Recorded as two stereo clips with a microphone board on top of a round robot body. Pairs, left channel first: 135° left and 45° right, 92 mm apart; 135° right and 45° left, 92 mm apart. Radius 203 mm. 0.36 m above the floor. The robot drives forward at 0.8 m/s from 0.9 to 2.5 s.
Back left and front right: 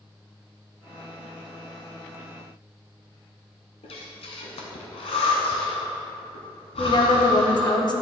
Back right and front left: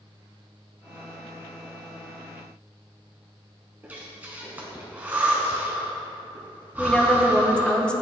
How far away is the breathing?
About 0.7 m.